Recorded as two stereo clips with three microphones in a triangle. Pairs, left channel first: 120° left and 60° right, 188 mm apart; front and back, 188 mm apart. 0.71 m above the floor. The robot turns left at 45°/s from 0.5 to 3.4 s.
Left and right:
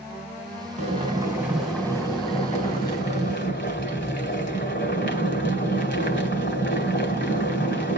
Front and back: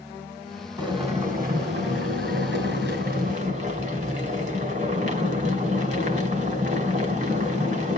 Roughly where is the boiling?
Right.